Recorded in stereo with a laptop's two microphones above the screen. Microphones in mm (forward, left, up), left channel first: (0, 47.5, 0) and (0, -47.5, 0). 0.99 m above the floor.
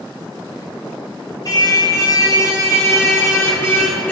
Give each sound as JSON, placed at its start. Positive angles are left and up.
{"t": 1.4, "sound": "a car horn", "side_deg": 45, "distance_m": 3.5}